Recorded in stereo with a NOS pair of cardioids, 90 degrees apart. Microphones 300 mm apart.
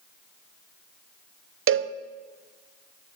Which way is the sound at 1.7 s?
45° right.